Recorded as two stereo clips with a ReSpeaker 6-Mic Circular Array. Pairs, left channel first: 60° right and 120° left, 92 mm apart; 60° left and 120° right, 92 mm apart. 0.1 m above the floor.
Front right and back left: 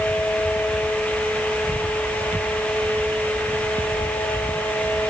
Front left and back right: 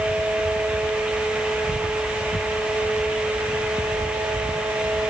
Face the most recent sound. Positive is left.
No sound to turn to.